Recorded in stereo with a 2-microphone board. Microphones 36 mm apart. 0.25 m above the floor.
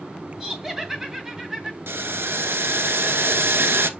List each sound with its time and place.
0.4 s laughter: 10° right (ahead or behind), 2 m
1.9 s boiling: 85° right, 0.8 m